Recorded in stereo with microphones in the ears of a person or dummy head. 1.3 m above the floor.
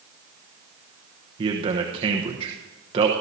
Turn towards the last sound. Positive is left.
turn(degrees=-25)  # may be behind; listen again after turning